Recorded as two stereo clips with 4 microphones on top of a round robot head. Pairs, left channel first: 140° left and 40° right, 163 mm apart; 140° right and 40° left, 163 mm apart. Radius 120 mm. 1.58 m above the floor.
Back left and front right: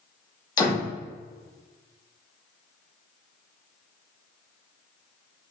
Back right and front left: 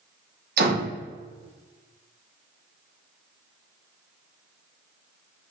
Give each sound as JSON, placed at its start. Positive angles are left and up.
{"t": 0.6, "sound": "a door slam", "azimuth_deg": 70, "distance_m": 2.5}